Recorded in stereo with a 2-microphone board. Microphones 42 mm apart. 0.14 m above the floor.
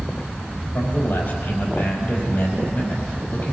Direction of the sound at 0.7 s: 55° left (ahead or behind).